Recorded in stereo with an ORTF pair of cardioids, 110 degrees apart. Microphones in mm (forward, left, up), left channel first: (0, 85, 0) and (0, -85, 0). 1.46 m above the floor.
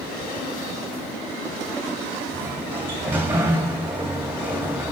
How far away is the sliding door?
About 1.9 m.